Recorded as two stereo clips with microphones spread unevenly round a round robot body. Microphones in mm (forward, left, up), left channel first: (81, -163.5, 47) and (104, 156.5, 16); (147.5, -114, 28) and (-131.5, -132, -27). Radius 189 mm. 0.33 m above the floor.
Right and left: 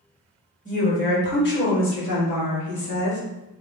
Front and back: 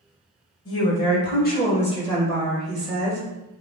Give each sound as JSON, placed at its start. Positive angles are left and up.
{"t": 0.7, "sound": "a woman speaking", "azimuth_deg": -30, "distance_m": 1.4}